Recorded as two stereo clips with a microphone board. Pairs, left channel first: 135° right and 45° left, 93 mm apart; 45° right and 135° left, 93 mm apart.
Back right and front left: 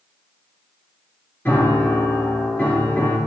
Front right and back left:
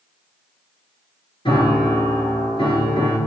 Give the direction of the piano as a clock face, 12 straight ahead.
2 o'clock.